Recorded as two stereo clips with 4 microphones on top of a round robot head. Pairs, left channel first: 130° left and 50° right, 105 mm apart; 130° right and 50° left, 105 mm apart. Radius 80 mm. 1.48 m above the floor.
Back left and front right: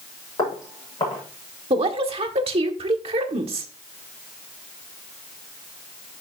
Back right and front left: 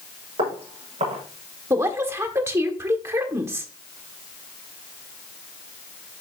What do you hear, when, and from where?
0.4 s footsteps: 75° left, 7.5 m
1.7 s a woman speaking: 15° right, 1.6 m